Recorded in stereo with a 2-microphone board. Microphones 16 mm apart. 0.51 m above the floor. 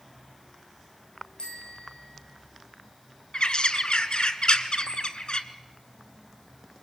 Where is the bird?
75° left (ahead or behind), 1.1 m.